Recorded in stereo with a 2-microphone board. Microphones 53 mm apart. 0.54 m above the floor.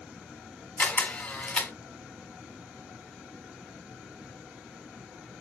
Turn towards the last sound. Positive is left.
turn(degrees=30)  # may be behind; listen again after turning